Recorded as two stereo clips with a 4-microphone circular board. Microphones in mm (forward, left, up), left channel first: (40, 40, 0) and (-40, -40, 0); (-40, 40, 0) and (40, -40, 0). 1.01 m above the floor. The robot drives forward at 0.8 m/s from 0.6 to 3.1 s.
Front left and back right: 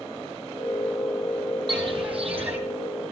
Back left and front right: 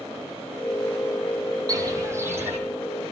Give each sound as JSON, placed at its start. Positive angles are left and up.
{"t": 1.7, "sound": "footsteps", "azimuth_deg": -95, "distance_m": 2.0}